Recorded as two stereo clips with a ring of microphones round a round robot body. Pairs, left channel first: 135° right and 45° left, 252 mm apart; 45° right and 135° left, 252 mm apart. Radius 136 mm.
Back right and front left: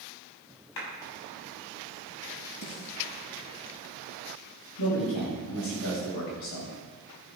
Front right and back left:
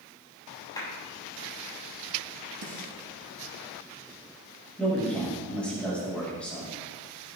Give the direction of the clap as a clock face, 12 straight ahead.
4 o'clock.